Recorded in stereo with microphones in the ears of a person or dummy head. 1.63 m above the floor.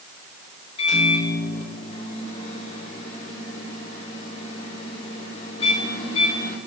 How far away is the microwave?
About 1.6 m.